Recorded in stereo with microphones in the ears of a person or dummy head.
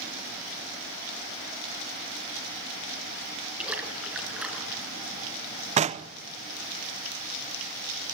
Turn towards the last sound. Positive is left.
turn(degrees=-35)  # may be behind; listen again after turning